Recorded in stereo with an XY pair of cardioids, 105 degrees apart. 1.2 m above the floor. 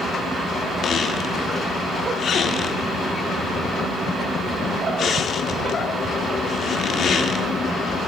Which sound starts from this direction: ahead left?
A squeak, at 0.8 s.